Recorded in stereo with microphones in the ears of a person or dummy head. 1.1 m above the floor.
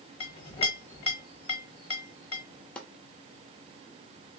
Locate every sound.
0.2 s a clink: 35° left (ahead or behind), 1.0 m
2.8 s chopping: 5° left (ahead or behind), 1.0 m